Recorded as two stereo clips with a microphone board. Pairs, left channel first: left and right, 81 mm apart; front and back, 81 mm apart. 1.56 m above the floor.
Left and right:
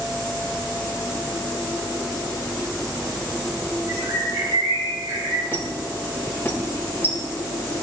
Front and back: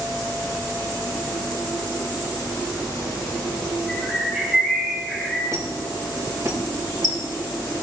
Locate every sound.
3.9 s a bird: 95° right, 3.5 m
5.5 s a squeak: 150° left, 1.8 m